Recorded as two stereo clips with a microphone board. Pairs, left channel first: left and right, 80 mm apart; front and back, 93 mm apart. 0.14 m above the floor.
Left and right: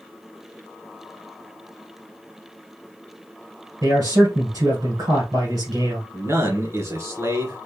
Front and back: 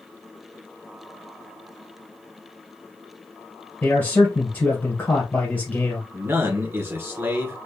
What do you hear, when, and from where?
3.8 s a man speaking: 60° right, 2 m
6.1 s a man speaking: 130° right, 2 m